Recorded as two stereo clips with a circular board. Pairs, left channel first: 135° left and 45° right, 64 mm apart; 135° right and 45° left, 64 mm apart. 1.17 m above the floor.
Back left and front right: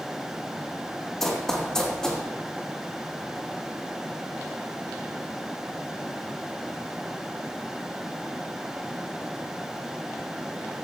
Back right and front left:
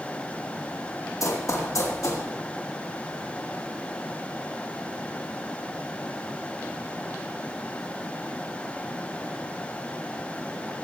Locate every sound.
1.2 s running footsteps: 140° right, 2.5 m; by 2.2 s 145° right, 3.5 m